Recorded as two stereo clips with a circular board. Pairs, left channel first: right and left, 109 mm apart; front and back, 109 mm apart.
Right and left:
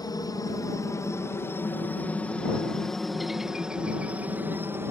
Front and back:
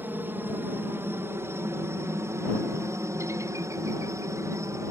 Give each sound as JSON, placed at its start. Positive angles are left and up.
{"t": 0.0, "sound": "a helicopter", "azimuth_deg": -120}